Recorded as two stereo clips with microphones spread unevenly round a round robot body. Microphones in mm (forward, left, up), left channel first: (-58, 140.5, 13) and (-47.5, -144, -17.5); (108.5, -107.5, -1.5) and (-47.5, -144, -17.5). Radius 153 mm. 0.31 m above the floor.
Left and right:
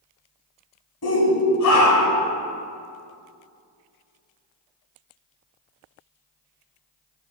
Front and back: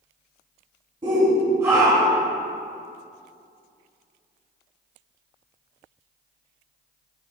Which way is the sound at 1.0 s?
125° left.